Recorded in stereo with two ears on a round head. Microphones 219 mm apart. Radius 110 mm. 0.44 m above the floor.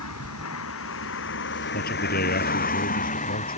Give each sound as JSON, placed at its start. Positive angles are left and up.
{"t": 0.0, "sound": "a vehicle", "side_deg": 65}
{"t": 1.7, "sound": "a man speaking", "side_deg": 40}